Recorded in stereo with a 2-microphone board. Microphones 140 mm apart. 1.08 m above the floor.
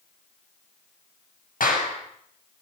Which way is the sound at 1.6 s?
85° left.